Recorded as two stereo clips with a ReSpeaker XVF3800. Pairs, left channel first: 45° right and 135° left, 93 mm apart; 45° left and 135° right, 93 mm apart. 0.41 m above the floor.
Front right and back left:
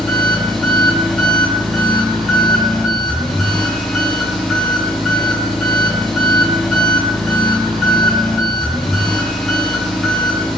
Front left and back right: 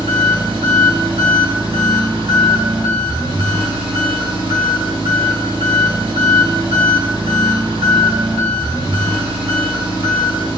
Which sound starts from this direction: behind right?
An engine running, at 0.0 s.